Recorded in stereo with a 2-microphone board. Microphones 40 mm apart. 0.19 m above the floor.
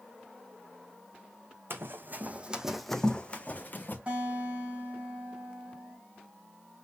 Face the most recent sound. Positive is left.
turn(degrees=-35)  # may be behind; listen again after turning